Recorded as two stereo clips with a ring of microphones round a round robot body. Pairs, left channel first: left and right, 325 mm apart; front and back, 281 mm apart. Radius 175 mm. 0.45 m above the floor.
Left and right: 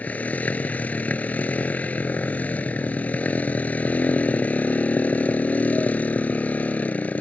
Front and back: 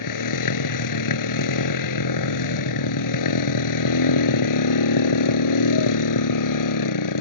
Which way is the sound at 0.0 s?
5° left.